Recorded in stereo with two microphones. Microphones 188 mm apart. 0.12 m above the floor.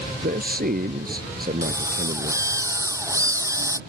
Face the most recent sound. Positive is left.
turn(degrees=-15)  # may be behind; listen again after turning